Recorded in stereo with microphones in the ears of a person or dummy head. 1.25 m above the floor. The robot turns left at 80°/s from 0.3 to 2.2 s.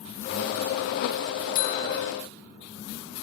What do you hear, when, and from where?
1.6 s a buzzer: 55° left; by 2.1 s 15° left